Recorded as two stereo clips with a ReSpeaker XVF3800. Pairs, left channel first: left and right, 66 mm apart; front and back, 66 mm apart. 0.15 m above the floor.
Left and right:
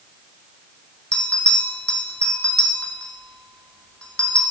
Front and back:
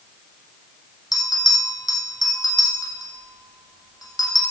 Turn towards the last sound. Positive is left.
turn(degrees=15)